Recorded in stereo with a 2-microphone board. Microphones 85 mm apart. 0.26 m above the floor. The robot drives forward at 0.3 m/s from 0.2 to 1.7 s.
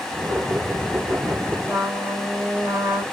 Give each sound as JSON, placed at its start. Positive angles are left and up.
{"t": 1.7, "sound": "a trumpet", "side_deg": -25, "distance_m": 2.0}